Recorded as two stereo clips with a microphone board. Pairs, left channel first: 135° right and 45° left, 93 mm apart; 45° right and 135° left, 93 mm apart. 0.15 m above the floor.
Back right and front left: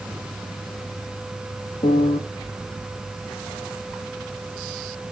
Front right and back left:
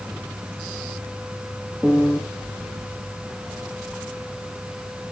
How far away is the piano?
About 1.8 m.